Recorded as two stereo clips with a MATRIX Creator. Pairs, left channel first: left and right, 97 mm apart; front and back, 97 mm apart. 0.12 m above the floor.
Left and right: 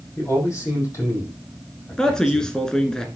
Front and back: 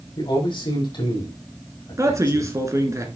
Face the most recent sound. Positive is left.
turn(degrees=165)